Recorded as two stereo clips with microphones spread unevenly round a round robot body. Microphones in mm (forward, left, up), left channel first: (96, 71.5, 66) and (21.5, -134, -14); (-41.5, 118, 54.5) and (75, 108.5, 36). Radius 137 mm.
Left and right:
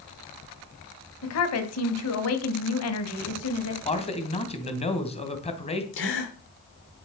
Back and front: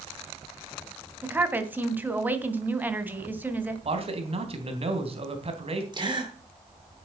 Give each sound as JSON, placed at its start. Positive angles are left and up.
{"t": 1.2, "sound": "a woman speaking", "azimuth_deg": 65, "distance_m": 2.5}
{"t": 3.9, "sound": "a man speaking", "azimuth_deg": 0, "distance_m": 3.0}
{"t": 5.9, "sound": "a gasp", "azimuth_deg": 40, "distance_m": 6.0}